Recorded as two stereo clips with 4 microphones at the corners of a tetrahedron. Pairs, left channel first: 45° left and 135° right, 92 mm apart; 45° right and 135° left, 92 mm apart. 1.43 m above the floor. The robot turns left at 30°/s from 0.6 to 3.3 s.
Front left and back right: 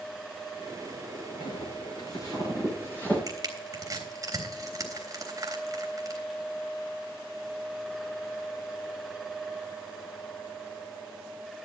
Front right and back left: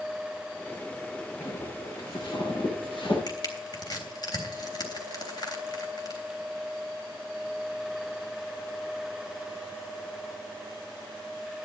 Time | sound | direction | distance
1.4 | footsteps | 20° left | 8 m
3.3 | crushing | 85° right | 3.5 m